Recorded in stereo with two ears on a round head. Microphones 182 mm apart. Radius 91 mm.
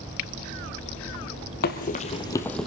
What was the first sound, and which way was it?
Running footsteps, 50° left (ahead or behind).